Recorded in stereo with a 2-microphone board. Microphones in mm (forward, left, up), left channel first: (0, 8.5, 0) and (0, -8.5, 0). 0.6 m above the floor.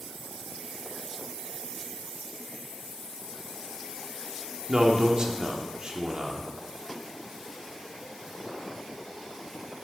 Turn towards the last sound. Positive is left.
turn(degrees=-45)  # may be behind; listen again after turning